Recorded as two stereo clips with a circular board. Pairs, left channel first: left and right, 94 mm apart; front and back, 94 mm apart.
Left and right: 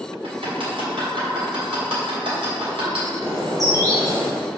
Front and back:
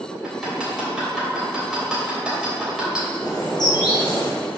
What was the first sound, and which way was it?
Hammering, 100° right.